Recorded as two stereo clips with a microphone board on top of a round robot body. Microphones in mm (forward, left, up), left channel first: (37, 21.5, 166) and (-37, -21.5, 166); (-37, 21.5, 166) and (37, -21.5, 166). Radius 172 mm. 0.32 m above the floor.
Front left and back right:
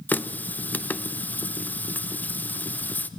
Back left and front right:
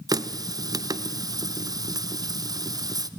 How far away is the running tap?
About 0.8 m.